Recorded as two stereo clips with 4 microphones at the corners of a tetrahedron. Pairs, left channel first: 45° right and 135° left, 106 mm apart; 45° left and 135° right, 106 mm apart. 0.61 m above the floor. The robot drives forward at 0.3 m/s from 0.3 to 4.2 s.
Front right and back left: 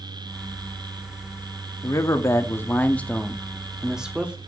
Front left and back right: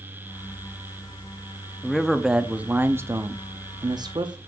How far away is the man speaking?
About 0.7 m.